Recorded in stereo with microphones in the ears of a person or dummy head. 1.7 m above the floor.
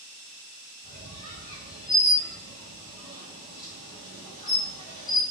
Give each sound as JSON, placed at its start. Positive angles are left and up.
{"t": 0.8, "sound": "a squeak", "side_deg": 20, "distance_m": 1.1}